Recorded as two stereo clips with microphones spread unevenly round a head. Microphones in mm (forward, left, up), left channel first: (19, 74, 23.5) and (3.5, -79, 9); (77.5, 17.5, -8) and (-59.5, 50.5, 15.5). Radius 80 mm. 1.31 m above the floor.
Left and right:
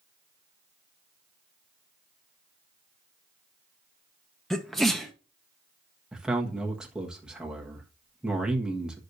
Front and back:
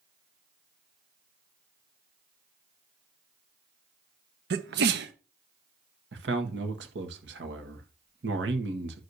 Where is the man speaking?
Straight behind, 1.5 m.